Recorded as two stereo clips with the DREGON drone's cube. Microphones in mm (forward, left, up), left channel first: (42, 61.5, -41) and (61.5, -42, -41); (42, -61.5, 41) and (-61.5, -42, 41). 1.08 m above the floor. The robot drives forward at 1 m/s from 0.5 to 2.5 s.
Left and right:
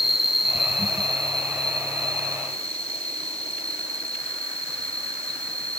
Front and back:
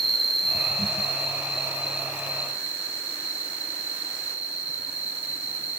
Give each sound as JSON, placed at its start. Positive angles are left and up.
{"t": 0.0, "sound": "an insect", "azimuth_deg": -165, "distance_m": 0.8}